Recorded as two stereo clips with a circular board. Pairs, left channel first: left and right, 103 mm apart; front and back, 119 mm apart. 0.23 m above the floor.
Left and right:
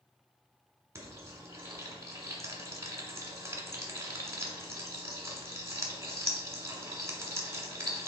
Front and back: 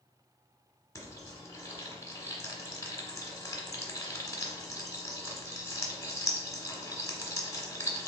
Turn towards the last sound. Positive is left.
turn(degrees=-50)